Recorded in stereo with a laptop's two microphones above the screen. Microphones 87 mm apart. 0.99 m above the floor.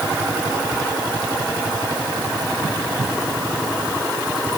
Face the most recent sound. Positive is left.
No sound to turn to.